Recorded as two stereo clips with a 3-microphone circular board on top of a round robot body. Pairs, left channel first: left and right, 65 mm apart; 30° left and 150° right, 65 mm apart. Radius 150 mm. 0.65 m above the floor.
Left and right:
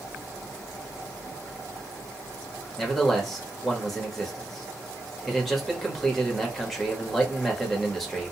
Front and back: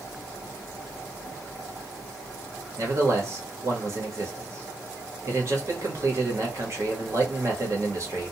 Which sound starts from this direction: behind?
A man speaking, at 2.8 s.